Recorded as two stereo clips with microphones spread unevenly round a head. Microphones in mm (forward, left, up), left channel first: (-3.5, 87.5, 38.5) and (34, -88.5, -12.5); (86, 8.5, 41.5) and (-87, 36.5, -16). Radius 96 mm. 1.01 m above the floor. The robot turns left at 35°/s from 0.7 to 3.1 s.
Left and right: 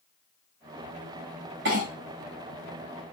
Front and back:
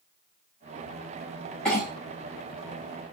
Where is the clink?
100° right, 1.1 m; by 1.9 s 105° right, 1.1 m.